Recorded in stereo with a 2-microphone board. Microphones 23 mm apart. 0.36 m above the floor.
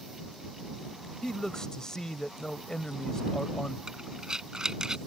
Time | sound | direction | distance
1.2 | a man speaking | 30° left (ahead or behind) | ?
3.9 | breathing | 30° right (ahead or behind) | ?